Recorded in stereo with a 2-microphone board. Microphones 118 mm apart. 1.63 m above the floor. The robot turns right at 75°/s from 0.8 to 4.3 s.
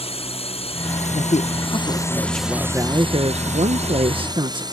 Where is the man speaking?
80° left; by 4.6 s 45° right.